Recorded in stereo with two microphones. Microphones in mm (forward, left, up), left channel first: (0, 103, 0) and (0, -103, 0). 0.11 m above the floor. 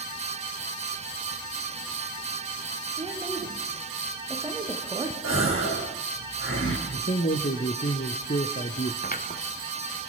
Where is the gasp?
80° left, 7 m.